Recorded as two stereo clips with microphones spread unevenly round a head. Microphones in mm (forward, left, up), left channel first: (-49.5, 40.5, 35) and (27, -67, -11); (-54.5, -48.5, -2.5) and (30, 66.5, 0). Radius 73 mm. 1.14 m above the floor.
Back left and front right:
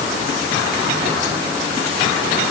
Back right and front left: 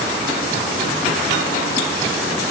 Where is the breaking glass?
No breaking glass in this recording.